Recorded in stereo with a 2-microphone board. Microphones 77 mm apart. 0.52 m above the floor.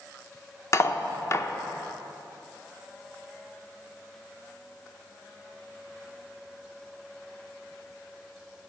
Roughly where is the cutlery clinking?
Left.